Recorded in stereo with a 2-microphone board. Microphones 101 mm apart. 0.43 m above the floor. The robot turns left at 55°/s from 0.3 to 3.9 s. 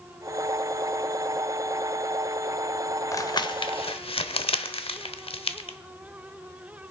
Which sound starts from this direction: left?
Crumpling, at 3.1 s.